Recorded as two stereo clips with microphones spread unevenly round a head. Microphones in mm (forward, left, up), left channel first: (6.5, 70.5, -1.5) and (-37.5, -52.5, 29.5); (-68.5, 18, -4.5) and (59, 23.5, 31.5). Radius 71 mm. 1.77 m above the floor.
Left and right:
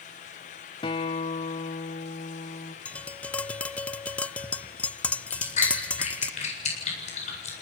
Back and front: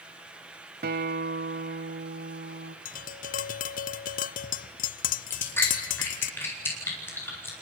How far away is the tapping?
About 0.5 m.